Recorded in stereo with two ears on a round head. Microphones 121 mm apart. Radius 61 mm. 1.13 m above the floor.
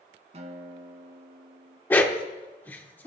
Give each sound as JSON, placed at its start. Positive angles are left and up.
{"t": 0.3, "sound": "a guitar", "side_deg": -50, "distance_m": 1.9}
{"t": 1.9, "sound": "a dog barking", "side_deg": 15, "distance_m": 1.0}